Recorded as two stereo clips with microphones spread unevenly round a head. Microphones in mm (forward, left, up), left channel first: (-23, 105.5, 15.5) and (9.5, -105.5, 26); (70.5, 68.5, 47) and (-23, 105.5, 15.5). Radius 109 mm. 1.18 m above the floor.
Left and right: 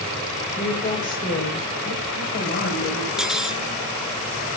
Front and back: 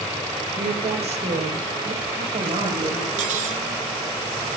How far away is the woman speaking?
About 3.5 m.